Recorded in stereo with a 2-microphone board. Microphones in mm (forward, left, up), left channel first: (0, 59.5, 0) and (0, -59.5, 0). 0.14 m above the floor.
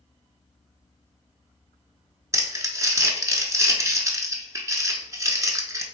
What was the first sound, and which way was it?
Crumpling, 30° right (ahead or behind).